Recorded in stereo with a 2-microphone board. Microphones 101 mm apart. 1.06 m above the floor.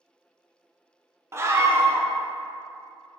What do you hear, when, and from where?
1.3 s a scream: 25° right (ahead or behind), 0.8 m